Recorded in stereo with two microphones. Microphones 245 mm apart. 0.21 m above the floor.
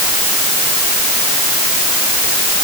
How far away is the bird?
I don't hear a bird.